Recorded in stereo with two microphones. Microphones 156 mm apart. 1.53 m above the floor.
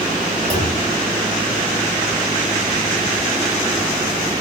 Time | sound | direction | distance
0.5 | a clunk | 40° right (ahead or behind) | 3.5 m